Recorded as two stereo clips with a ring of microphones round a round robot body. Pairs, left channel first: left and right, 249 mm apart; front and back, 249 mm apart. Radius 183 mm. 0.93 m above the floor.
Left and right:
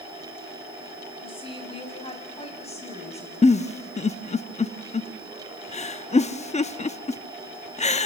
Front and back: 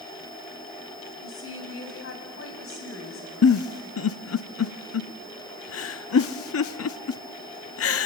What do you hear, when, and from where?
1.2 s a woman speaking: 20° left, 5.5 m; by 3.3 s 30° left, 6.5 m
3.4 s a giggle: 25° left, 0.9 m